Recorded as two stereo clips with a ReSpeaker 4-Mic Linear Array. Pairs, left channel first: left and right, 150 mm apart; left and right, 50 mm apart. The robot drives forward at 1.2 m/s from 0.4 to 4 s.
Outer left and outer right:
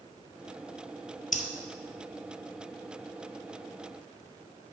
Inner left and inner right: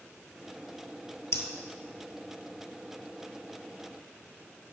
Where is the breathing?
60° left (ahead or behind), 0.9 m; by 1.4 s 55° left (ahead or behind), 1.0 m.